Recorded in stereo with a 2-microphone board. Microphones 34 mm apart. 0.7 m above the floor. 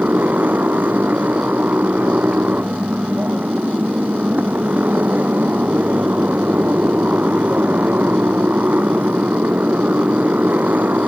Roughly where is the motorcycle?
Right.